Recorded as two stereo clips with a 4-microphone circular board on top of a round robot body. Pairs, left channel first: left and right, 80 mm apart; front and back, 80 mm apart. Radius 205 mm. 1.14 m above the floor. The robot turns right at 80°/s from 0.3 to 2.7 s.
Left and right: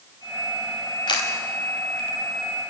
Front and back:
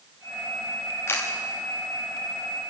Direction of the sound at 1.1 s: 60° left.